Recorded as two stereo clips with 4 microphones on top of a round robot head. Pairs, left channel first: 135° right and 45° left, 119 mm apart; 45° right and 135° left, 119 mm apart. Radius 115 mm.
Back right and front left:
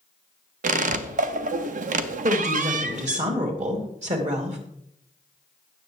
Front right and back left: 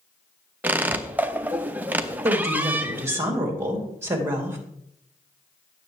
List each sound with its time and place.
0.6 s a squeak: 60° left, 0.5 m
2.2 s a woman speaking: 65° left, 3 m